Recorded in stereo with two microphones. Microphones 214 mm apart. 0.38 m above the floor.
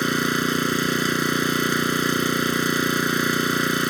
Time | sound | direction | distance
0.0 | an engine running | centre (ahead or behind) | ?